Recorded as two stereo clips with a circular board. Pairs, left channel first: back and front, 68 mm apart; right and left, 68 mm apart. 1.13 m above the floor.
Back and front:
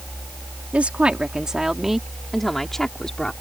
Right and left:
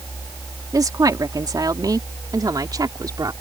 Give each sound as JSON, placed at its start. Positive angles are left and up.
{"t": 0.7, "sound": "a woman speaking", "azimuth_deg": 70}